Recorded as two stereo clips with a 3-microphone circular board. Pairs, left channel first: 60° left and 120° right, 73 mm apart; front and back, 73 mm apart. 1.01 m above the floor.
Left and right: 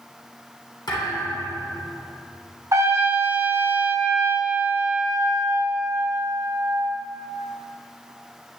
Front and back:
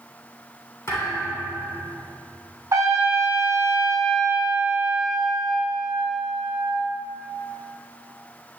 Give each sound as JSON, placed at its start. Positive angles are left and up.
{"t": 0.9, "sound": "a thud", "azimuth_deg": 45, "distance_m": 3.0}
{"t": 2.7, "sound": "a trumpet", "azimuth_deg": -150, "distance_m": 1.3}